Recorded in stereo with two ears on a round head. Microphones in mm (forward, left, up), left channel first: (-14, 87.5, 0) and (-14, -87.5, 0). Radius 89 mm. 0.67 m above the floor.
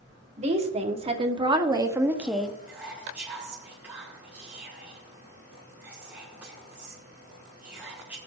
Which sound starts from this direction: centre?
Whispering, at 2.7 s.